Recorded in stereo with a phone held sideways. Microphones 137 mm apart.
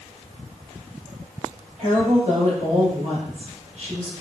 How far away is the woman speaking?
About 1.9 m.